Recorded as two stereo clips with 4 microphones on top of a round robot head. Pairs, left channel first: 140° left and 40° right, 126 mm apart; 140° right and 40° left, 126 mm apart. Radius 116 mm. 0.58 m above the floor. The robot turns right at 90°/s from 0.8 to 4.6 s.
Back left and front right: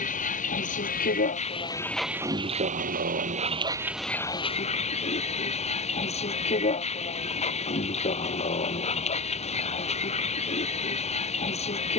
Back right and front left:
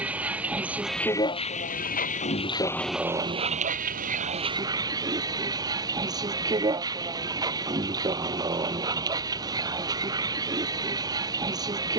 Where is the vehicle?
120° left; by 12.0 s 100° left.